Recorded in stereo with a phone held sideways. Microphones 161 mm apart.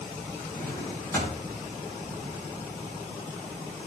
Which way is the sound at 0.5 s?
15° left (ahead or behind).